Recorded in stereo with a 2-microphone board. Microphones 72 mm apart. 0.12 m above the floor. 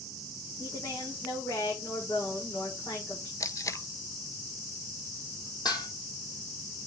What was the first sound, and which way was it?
A woman speaking, 55° left (ahead or behind).